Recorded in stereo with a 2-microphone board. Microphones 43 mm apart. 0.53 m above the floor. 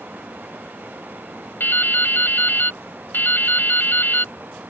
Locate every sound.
1.6 s dripping: 55° left (ahead or behind)